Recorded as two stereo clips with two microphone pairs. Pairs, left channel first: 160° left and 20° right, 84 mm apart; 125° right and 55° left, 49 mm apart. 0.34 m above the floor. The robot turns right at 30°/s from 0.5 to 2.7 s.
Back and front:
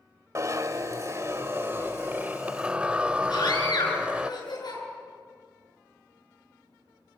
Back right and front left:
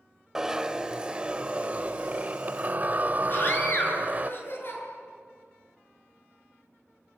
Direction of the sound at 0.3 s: 20° right.